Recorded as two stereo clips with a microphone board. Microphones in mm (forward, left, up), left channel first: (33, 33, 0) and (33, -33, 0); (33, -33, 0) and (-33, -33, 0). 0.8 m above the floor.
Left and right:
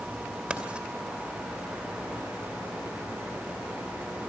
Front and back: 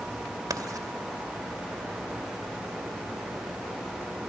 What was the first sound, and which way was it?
Writing, 165° right.